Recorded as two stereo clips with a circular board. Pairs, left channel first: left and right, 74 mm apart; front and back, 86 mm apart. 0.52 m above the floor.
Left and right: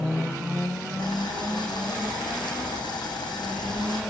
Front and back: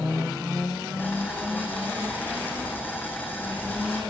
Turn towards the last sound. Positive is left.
turn(degrees=70)